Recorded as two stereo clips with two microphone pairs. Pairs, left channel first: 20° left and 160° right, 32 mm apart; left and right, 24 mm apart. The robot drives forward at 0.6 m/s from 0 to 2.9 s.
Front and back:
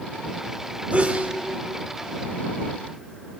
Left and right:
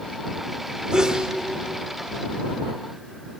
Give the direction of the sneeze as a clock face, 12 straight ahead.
4 o'clock.